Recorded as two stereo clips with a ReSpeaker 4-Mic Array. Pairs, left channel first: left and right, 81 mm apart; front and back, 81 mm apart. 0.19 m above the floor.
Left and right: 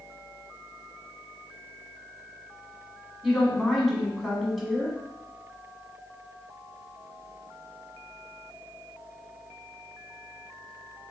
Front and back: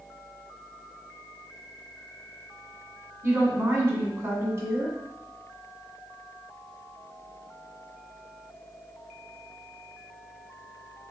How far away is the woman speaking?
About 1.4 m.